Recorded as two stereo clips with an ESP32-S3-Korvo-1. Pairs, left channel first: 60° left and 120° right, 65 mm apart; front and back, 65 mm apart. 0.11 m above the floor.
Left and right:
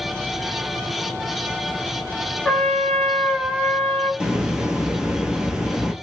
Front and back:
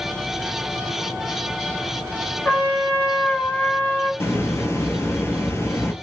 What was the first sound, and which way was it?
A trumpet, 30° right.